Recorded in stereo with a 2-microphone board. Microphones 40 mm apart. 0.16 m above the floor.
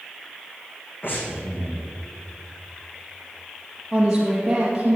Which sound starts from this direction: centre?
A woman speaking, at 3.9 s.